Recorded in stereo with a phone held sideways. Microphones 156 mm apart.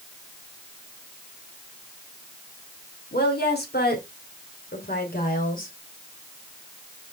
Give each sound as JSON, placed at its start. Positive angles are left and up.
{"t": 3.1, "sound": "a woman speaking", "side_deg": 75, "distance_m": 2.5}